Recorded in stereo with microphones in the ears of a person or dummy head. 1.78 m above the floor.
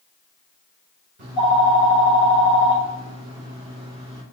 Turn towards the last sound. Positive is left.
turn(degrees=-60)  # may be behind; listen again after turning